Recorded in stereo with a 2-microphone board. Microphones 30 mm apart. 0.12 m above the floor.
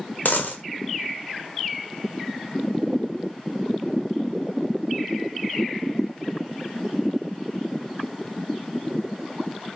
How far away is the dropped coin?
About 0.9 m.